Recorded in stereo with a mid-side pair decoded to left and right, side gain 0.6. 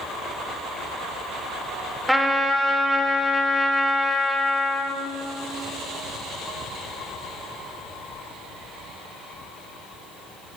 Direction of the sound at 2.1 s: 5° right.